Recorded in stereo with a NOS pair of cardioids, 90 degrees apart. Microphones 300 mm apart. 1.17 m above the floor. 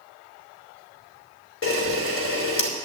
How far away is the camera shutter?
About 3 m.